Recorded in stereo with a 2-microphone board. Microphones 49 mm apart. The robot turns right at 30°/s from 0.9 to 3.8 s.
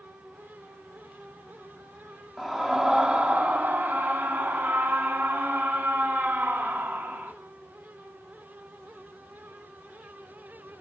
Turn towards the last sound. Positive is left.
turn(degrees=-130)